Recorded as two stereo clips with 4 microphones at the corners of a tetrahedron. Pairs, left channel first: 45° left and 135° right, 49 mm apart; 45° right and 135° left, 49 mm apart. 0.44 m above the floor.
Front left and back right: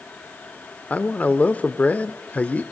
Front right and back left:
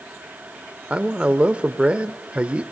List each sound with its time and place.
0.9 s a man speaking: 80° left, 0.9 m